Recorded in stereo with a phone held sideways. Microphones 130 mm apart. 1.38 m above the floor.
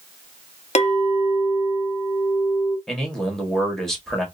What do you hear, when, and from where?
0.8 s a clink: 55° left (ahead or behind), 0.7 m
2.9 s a man speaking: centre (ahead or behind), 1.3 m